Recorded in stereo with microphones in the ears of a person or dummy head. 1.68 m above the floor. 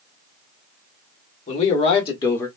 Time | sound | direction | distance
1.5 | a man speaking | 35° left (ahead or behind) | 1.5 m